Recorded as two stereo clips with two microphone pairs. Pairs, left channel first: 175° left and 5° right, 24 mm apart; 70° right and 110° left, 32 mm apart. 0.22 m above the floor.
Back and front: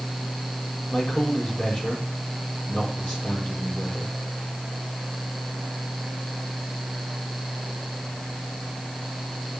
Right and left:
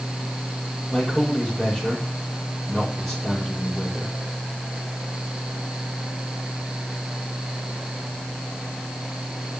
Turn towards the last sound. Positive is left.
turn(degrees=-145)